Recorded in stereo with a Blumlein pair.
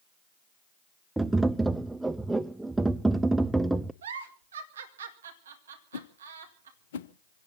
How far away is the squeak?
I don't hear a squeak.